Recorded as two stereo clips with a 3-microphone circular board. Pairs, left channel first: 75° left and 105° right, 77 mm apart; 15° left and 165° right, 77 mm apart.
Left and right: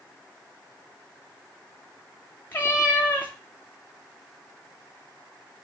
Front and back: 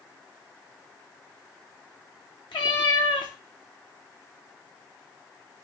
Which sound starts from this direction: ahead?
A cat meowing, at 2.5 s.